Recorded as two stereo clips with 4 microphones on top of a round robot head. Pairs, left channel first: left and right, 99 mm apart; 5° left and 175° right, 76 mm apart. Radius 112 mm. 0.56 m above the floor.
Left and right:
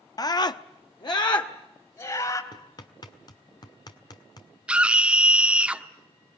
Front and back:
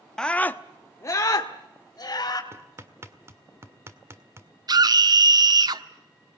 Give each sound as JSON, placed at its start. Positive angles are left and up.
{"t": 0.2, "sound": "a scream", "azimuth_deg": 85, "distance_m": 0.8}
{"t": 2.5, "sound": "hammering", "azimuth_deg": 135, "distance_m": 1.8}
{"t": 4.7, "sound": "a scream", "azimuth_deg": -170, "distance_m": 1.3}